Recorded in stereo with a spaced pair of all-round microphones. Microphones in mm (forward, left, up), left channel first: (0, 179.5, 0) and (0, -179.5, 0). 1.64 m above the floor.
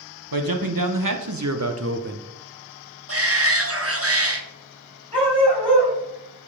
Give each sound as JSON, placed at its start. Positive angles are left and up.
{"t": 0.3, "sound": "a man speaking", "side_deg": -70, "distance_m": 1.3}
{"t": 3.1, "sound": "a shout", "side_deg": -40, "distance_m": 1.3}
{"t": 5.1, "sound": "a dog barking", "side_deg": -15, "distance_m": 4.0}